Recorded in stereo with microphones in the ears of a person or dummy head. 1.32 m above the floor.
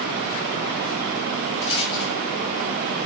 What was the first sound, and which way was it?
A rattle, 65° left (ahead or behind).